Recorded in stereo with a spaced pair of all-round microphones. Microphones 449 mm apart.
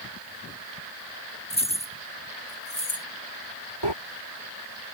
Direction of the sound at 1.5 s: 10° left (ahead or behind).